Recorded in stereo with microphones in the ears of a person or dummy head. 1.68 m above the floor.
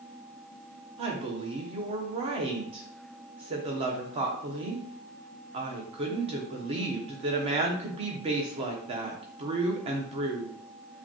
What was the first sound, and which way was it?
A woman speaking, 30° right (ahead or behind).